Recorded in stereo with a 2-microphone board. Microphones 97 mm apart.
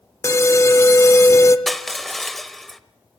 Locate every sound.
0.2 s an alarm: 30° left (ahead or behind), 0.7 m
1.7 s crushing: centre (ahead or behind), 0.7 m